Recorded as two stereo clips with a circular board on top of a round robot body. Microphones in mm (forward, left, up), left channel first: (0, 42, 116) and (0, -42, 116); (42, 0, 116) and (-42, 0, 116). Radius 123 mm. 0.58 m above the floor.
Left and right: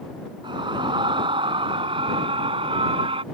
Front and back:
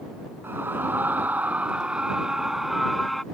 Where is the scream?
115° right; by 3.2 s 90° right.